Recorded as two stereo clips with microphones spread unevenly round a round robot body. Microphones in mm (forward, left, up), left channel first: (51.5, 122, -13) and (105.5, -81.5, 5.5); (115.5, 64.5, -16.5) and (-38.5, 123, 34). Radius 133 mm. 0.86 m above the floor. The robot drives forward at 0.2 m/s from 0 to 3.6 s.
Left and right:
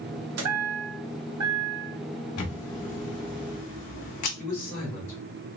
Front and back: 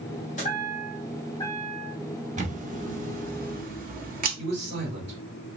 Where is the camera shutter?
110° left, 1.0 m; by 4.3 s 125° left, 1.1 m.